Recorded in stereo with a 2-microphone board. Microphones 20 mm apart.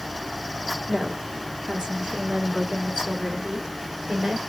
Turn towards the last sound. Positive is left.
turn(degrees=-60)  # may be behind; listen again after turning